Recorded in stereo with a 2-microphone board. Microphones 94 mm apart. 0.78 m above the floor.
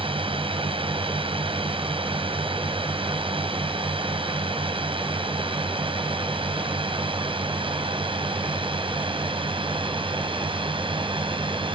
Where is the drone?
75° right (ahead or behind); by 11.8 s 65° right (ahead or behind).